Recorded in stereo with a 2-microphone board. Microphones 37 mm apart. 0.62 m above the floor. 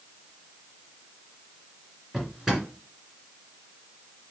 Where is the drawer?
10° right (ahead or behind), 2 m.